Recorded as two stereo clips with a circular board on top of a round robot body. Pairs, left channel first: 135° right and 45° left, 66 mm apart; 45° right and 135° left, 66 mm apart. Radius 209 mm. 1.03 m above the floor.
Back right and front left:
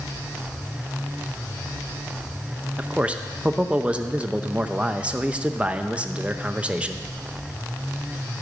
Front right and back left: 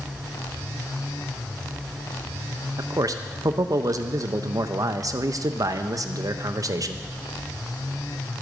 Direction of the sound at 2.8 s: 115° left.